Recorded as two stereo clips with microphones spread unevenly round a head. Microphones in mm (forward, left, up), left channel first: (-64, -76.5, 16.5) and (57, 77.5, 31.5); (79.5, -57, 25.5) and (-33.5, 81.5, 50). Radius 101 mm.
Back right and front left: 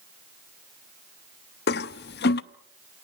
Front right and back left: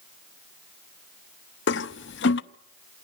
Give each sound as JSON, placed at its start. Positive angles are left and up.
{"t": 1.7, "sound": "a toilet flushing", "azimuth_deg": -85, "distance_m": 0.7}